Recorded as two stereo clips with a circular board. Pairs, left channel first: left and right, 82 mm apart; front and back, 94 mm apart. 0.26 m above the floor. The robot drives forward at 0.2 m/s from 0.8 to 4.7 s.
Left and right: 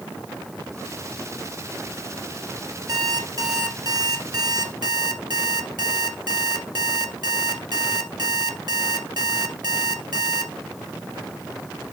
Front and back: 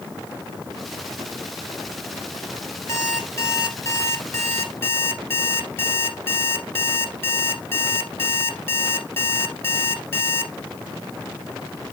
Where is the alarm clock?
55° right, 2.5 m; by 10.5 s 60° right, 2.5 m.